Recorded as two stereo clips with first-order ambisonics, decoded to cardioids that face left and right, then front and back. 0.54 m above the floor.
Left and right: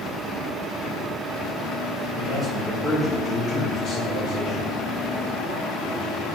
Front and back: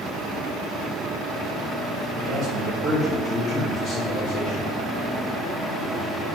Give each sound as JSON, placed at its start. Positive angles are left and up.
{"t": 2.1, "sound": "a man speaking", "azimuth_deg": -160, "distance_m": 1.1}